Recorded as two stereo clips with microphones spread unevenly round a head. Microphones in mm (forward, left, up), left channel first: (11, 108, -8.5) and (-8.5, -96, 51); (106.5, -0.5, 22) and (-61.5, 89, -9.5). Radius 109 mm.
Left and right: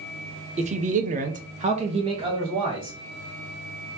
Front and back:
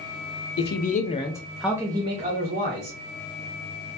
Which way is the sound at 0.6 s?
30° right.